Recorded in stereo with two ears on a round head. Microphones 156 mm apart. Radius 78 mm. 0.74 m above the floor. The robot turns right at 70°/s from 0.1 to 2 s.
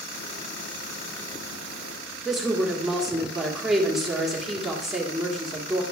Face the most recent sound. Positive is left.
turn(degrees=0)  # may be behind; listen again after turning